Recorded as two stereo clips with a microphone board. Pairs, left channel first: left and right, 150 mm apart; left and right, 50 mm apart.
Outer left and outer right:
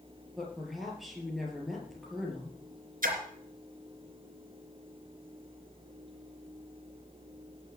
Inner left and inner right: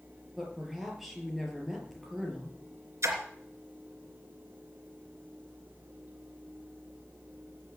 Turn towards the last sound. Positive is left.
turn(degrees=-65)  # may be behind; listen again after turning